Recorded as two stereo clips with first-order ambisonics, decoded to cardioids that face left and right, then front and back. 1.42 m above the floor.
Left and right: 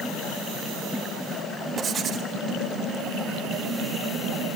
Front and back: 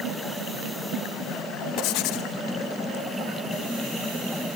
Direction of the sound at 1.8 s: 25° right.